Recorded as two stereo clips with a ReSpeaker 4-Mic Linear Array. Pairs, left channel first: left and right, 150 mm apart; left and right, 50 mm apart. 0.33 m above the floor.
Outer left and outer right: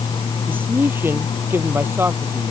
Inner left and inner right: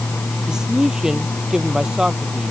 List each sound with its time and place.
0.5 s a man speaking: 15° right (ahead or behind)